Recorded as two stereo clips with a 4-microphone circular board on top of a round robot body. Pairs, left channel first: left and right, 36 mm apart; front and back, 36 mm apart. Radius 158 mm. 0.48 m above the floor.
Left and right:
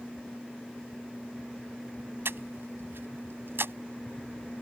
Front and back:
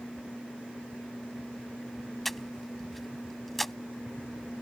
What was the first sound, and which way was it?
Breathing, 85° right.